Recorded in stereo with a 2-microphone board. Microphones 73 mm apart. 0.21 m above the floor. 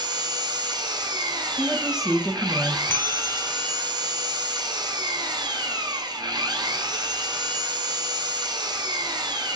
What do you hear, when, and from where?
0.0 s an engine running: 80° right, 0.7 m
1.6 s a woman speaking: 10° right (ahead or behind), 1.1 m
2.9 s a bell: 30° left (ahead or behind), 0.7 m